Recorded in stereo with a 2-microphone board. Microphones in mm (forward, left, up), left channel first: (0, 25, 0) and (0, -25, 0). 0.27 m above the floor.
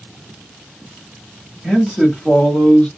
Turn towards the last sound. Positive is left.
turn(degrees=20)  # may be behind; listen again after turning